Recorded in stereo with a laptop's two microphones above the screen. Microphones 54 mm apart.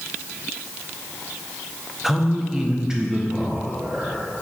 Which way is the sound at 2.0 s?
5° right (ahead or behind).